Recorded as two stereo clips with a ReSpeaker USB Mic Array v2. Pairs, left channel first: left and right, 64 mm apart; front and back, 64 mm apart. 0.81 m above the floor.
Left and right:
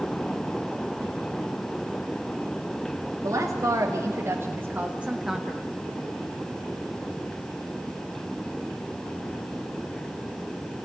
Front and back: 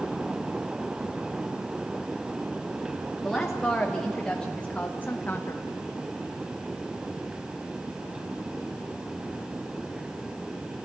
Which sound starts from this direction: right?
A woman speaking, at 3.2 s.